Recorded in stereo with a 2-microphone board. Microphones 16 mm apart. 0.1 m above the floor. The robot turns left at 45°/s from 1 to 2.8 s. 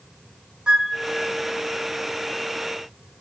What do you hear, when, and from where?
0.7 s a flute: 70° right (ahead or behind), 1.2 m